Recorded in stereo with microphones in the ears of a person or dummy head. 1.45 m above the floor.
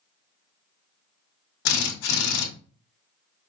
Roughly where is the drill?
Left.